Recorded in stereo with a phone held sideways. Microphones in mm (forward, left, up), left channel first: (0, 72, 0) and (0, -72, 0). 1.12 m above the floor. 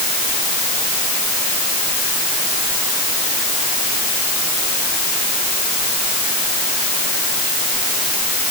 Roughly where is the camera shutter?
I don't hear a camera shutter.